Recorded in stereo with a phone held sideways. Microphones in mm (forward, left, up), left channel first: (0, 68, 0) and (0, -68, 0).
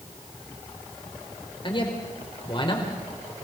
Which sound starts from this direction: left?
A man speaking, at 1.6 s.